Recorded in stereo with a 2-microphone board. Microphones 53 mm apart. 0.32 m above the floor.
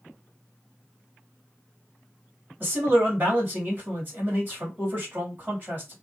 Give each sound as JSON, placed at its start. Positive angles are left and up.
{"t": 2.6, "sound": "a man speaking", "side_deg": -40, "distance_m": 1.8}